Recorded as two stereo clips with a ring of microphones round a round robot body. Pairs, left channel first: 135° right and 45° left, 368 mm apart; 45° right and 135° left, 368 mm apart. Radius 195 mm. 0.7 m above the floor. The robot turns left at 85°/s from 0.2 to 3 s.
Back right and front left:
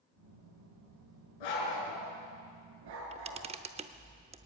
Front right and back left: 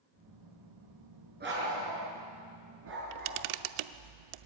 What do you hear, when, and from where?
1.4 s a dog barking: 155° right, 5 m; by 3.4 s 65° left, 5 m
2.9 s a camera shutter: 130° left, 0.7 m; by 4.5 s 120° left, 0.7 m